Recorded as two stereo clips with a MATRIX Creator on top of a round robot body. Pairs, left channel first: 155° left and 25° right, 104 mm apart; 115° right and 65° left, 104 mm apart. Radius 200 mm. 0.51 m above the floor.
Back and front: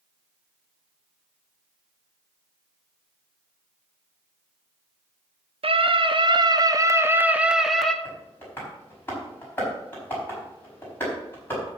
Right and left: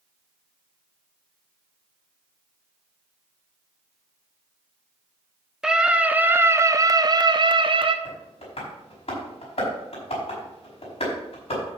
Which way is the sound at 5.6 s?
15° right.